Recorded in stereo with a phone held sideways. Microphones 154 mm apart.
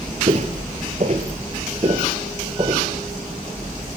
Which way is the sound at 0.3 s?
45° right (ahead or behind).